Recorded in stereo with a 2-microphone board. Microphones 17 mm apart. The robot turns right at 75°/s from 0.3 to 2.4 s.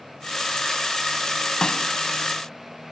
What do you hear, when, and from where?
1.6 s a snare drum: 45° left (ahead or behind), 1.6 m; by 1.9 s 55° left (ahead or behind), 1.6 m